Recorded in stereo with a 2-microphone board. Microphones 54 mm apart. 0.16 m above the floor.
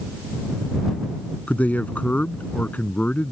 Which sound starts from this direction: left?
A man speaking, at 1.5 s.